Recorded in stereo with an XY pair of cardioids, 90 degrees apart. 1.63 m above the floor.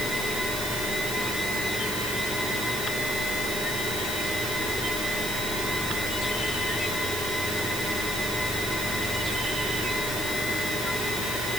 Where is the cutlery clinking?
I don't hear cutlery clinking.